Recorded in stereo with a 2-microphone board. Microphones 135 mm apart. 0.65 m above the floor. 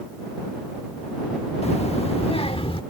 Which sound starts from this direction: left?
A child speaking, at 1.6 s.